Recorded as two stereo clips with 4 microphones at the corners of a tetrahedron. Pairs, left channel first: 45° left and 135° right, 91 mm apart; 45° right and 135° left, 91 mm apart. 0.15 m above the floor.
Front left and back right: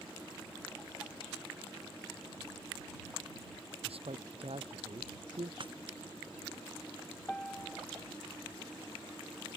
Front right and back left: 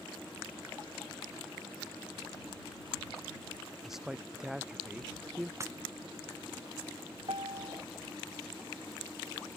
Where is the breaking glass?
165° right.